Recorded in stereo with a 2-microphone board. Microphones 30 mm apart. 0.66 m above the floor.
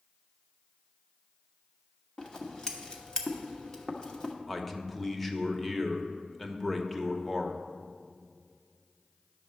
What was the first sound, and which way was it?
Scissors, 25° left (ahead or behind).